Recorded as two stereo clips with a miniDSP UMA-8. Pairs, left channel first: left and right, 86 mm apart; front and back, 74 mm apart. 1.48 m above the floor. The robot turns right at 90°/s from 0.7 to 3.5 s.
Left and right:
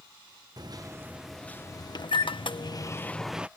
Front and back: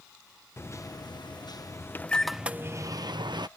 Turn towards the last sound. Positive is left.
turn(degrees=-160)